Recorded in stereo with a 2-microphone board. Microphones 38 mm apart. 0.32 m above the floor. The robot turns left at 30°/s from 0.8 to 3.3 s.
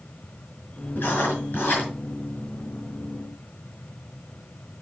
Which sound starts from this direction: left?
Writing, at 1.0 s.